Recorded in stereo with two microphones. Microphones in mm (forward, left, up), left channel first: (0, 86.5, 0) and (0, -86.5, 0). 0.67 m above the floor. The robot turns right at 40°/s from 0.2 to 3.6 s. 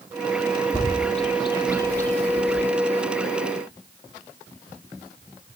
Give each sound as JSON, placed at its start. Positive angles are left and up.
{"t": 0.7, "sound": "a bird", "side_deg": 45, "distance_m": 1.4}